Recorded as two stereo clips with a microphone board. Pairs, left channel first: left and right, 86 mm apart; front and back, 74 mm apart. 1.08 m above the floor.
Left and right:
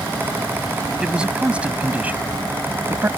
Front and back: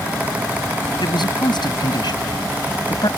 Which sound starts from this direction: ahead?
A man speaking, at 1.0 s.